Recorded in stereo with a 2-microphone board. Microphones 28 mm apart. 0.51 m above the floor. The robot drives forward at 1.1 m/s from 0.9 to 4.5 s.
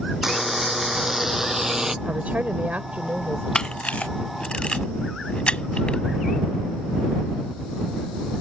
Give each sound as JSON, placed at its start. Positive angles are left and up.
{"t": 0.2, "sound": "a buzzer", "side_deg": -15}
{"t": 2.0, "sound": "a woman speaking", "side_deg": -60}
{"t": 3.5, "sound": "a camera shutter", "side_deg": 30}